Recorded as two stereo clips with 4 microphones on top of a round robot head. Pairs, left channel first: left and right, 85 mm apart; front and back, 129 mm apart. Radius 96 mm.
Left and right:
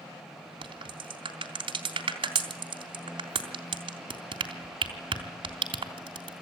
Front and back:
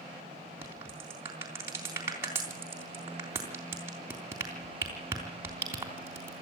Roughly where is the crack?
Right.